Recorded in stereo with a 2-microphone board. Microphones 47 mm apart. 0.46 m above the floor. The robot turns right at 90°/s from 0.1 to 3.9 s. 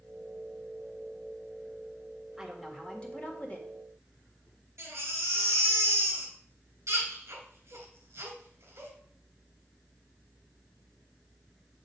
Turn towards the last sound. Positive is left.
turn(degrees=-80)